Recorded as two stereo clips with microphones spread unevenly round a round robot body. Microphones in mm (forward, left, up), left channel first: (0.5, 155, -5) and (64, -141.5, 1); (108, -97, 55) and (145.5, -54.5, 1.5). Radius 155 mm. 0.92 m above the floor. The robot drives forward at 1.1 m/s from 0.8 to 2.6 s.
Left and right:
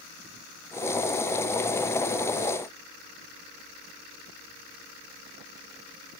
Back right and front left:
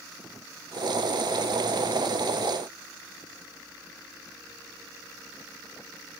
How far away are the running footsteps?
No running footsteps in this recording.